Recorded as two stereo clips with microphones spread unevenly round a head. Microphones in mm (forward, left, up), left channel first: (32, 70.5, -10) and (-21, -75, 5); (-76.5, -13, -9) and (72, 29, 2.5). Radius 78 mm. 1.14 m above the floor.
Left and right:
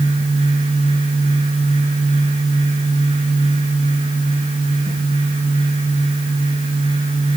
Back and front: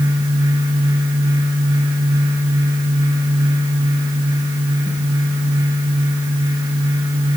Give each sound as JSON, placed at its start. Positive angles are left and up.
{"t": 0.0, "sound": "a fan", "azimuth_deg": -55, "distance_m": 10.0}